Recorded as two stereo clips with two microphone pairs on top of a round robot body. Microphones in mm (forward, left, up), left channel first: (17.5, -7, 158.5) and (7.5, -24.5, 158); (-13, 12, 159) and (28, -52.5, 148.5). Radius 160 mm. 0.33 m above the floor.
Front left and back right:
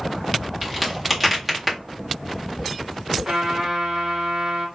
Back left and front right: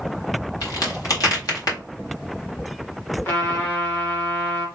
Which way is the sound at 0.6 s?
155° left.